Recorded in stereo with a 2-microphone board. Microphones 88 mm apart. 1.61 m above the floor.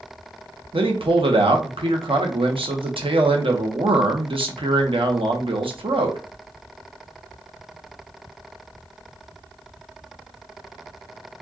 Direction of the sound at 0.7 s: 80° right.